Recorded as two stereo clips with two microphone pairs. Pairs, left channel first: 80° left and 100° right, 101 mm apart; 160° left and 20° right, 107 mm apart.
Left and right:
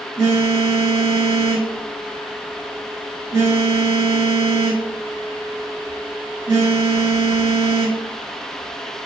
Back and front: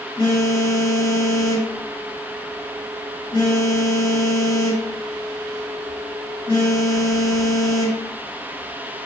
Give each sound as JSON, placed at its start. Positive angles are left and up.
{"t": 0.2, "sound": "a phone buzzing", "azimuth_deg": -155, "distance_m": 1.1}